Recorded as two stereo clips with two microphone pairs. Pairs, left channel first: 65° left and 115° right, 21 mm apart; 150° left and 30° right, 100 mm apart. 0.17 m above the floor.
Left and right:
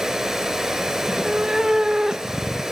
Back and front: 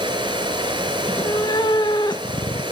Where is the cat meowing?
175° right, 0.5 m.